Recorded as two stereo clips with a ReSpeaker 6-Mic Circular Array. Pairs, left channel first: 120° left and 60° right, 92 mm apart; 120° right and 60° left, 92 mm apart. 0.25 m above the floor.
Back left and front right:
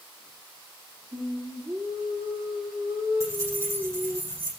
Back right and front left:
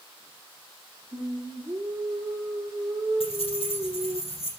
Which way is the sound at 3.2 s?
120° right.